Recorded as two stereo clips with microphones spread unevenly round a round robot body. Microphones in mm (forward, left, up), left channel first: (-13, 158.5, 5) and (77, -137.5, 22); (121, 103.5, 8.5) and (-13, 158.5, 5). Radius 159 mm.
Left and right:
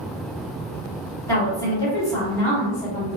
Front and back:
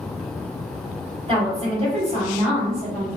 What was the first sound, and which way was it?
A woman speaking, straight behind.